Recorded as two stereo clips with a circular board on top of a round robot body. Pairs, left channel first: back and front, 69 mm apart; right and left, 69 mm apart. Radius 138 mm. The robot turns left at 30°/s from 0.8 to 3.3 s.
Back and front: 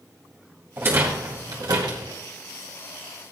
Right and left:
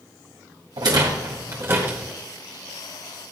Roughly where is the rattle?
Ahead left.